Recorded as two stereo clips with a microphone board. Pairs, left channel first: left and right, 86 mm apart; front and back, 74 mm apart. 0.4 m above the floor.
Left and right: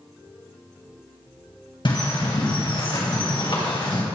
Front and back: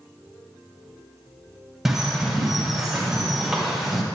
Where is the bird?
95° left, 2 m.